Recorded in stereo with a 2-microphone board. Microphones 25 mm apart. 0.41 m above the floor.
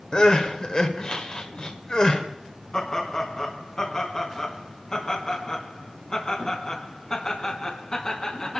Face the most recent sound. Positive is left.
turn(degrees=30)  # may be behind; listen again after turning